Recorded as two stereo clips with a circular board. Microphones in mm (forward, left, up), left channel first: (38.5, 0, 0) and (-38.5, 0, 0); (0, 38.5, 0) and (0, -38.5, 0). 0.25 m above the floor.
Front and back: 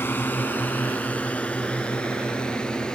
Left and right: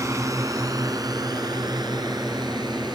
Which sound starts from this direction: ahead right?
A drone, at 0.0 s.